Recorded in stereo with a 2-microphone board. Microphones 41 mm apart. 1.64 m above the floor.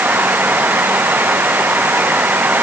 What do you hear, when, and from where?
Only background noise.